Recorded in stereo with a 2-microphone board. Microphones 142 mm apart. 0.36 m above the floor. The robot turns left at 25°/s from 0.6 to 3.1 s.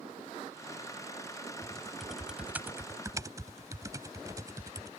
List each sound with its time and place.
1.6 s typing on a keyboard: 10° left (ahead or behind); by 4.9 s 25° right (ahead or behind)